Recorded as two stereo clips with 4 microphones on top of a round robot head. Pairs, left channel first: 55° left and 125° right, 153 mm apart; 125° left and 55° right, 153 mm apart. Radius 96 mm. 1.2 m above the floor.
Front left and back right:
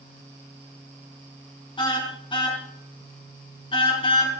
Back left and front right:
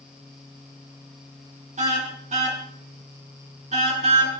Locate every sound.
1.8 s a car horn: 5° right, 4.5 m